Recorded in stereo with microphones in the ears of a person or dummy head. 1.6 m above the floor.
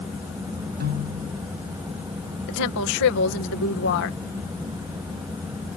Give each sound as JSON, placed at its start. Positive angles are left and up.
{"t": 0.8, "sound": "a piano", "side_deg": -60}
{"t": 2.5, "sound": "a woman speaking", "side_deg": 70}